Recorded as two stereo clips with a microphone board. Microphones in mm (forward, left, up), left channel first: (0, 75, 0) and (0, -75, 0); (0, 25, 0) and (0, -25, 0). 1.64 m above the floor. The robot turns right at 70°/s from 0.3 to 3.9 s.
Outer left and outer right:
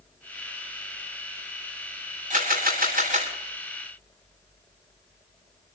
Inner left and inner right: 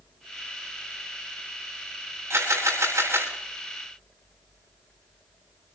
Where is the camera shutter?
120° right, 8 m; by 3.3 s 50° right, 8 m.